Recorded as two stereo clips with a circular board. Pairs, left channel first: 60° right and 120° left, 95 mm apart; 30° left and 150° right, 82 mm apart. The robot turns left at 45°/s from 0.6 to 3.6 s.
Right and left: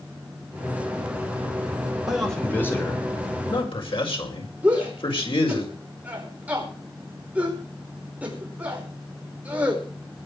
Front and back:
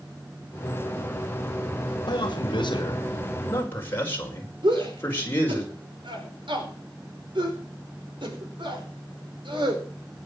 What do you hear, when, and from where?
2.1 s a man speaking: 35° left, 5.5 m; by 5.6 s 35° right, 5.5 m
4.6 s a shout: 165° right, 5 m